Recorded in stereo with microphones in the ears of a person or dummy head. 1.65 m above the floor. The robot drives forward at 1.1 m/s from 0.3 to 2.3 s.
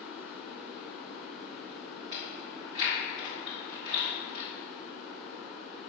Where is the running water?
15° right (ahead or behind), 1.1 m; by 5.9 s 5° right (ahead or behind), 3.5 m.